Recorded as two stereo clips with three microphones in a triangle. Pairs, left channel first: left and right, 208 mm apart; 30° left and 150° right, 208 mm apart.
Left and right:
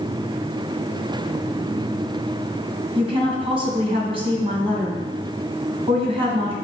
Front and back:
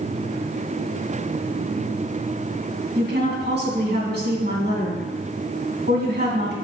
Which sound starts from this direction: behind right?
A woman speaking, at 3.0 s.